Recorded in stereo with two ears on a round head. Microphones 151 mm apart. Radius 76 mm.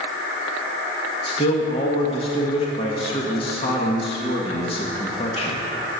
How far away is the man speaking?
About 1.5 m.